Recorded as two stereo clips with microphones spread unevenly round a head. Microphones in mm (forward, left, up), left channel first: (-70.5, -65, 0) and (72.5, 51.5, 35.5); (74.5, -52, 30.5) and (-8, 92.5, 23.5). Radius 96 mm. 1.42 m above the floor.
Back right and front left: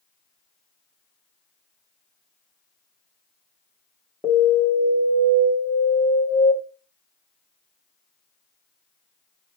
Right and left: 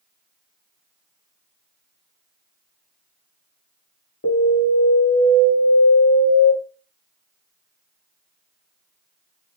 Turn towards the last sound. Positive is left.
turn(degrees=-50)